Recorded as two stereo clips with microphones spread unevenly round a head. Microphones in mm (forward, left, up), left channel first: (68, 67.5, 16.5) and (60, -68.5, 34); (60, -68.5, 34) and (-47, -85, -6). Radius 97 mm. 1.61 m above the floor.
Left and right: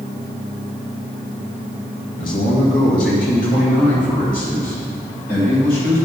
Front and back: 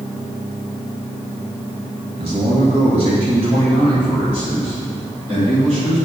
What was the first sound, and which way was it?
A man speaking, 130° left.